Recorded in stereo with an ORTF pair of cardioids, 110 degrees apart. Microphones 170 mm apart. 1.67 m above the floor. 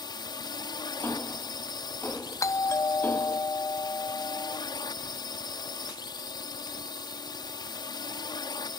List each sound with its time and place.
0.0 s a drone: 25° left
1.0 s ticking: 10° left
2.4 s a doorbell: 20° left